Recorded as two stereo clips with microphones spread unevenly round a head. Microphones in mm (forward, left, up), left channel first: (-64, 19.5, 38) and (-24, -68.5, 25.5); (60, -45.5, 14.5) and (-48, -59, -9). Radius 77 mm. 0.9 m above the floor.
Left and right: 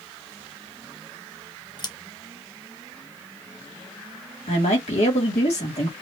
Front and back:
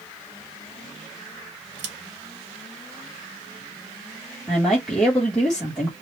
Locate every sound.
1.8 s scissors: 160° left, 1.1 m
4.5 s a woman speaking: 100° left, 1.8 m